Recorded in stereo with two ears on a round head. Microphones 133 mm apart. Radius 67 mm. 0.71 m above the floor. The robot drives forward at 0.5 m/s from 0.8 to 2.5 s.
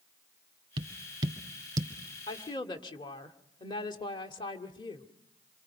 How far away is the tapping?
About 1.9 m.